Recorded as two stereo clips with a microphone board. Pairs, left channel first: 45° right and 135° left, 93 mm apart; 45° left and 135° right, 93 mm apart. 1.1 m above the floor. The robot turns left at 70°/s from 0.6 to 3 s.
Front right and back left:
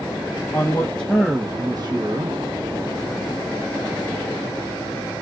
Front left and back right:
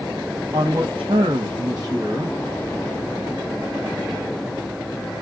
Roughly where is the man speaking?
Right.